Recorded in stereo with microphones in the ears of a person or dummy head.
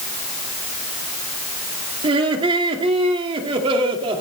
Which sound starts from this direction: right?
Laughter, at 2.0 s.